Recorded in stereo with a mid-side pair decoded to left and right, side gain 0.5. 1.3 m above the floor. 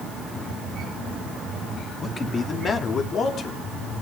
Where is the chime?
No chime in this recording.